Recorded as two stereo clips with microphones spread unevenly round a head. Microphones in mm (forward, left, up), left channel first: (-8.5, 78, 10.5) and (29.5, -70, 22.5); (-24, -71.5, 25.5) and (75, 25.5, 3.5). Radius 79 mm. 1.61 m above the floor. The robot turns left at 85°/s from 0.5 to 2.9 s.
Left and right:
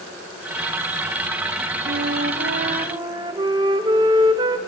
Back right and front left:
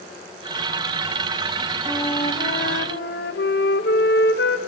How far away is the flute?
About 0.8 m.